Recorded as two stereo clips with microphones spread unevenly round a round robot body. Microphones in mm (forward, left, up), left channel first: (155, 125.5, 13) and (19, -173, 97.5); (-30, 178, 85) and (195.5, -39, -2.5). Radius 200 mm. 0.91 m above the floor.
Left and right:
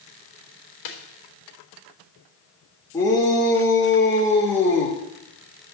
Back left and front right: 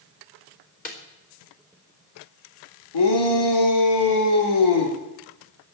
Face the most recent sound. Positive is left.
turn(degrees=145)